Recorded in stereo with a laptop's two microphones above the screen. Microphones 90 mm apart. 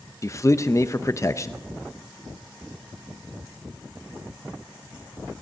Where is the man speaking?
35° left (ahead or behind), 0.8 m.